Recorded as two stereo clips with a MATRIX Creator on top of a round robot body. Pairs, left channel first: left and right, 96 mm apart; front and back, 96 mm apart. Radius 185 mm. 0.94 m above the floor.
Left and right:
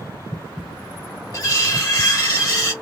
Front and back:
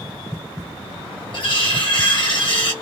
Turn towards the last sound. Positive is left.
turn(degrees=35)